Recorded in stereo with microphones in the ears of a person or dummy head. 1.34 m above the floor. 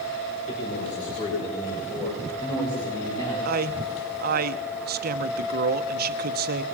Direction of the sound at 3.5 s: 55° right (ahead or behind).